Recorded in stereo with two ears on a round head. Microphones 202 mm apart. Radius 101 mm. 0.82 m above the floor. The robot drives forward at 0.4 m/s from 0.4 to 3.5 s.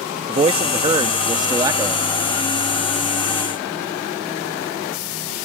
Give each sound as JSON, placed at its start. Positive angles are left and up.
{"t": 0.3, "sound": "a man speaking", "side_deg": -25}